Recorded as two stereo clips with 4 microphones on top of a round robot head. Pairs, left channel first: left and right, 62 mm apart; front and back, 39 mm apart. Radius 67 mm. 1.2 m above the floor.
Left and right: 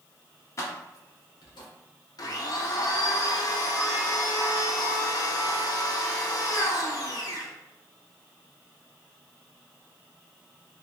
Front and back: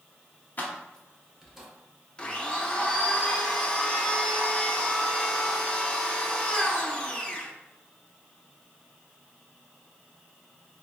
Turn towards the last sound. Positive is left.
turn(degrees=70)